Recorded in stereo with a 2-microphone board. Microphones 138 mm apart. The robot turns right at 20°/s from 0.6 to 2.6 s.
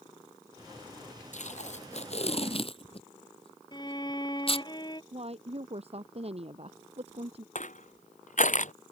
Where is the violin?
30° left (ahead or behind).